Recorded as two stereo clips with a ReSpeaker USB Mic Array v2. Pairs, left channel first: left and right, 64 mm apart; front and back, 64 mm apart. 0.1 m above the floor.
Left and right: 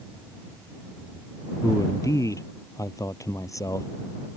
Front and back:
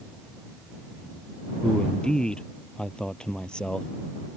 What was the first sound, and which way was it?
A man speaking, 75° left.